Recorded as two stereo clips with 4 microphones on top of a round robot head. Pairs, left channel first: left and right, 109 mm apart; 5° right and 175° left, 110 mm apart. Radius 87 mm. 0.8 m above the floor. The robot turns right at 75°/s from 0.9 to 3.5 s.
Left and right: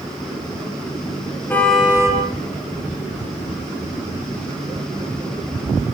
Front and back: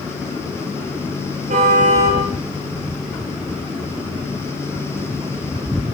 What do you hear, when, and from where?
1.5 s a car horn: 160° left, 7.5 m; by 2.2 s 145° right, 7.5 m